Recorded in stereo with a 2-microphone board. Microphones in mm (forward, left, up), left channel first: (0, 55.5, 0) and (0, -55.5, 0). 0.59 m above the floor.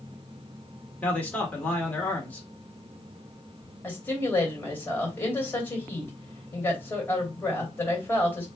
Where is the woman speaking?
15° left (ahead or behind), 2.5 m.